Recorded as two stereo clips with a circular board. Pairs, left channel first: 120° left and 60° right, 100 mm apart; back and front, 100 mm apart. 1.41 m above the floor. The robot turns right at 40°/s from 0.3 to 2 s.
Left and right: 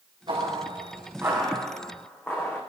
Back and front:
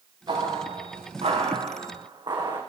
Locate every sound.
0.3 s footsteps: 35° right, 6.5 m; by 2.6 s 40° left, 6 m